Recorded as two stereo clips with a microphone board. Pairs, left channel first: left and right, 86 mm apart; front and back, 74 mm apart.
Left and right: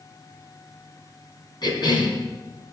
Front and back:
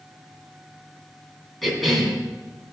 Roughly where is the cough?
Left.